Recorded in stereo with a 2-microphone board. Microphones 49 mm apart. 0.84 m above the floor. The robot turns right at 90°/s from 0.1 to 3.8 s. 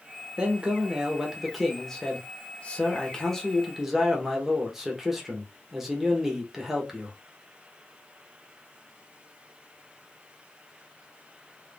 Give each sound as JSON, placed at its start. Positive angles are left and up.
{"t": 0.4, "sound": "a man speaking", "side_deg": -20, "distance_m": 0.8}